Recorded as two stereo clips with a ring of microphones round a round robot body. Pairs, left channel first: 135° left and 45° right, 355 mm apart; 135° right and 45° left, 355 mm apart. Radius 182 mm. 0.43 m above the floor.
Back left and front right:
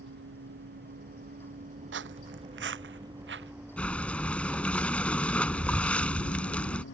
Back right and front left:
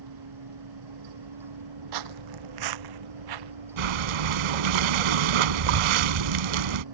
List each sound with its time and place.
0.0 s a vehicle: 15° left; by 7.0 s 75° left
1.9 s footsteps: 15° left
3.8 s breathing: 50° left